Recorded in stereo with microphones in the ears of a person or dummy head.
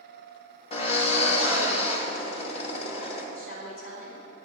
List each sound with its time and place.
0.7 s a drill: 40° left (ahead or behind), 2 m
3.4 s a woman speaking: 65° left (ahead or behind), 5 m